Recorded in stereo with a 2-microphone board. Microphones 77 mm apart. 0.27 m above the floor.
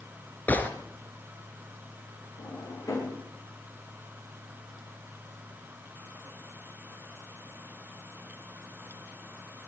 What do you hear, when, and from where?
0.5 s a gunshot: 25° left (ahead or behind), 2.5 m
2.4 s a drawer: 55° left (ahead or behind), 9 m